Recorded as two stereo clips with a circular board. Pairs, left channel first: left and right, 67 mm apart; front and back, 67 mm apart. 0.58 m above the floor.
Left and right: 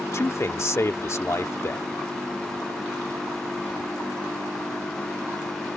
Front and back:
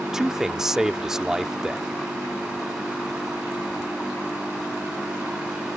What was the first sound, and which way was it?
A man speaking, 100° left.